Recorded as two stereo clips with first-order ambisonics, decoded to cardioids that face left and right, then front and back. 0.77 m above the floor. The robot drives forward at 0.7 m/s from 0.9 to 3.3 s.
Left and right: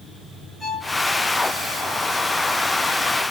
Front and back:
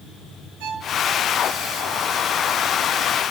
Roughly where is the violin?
Behind.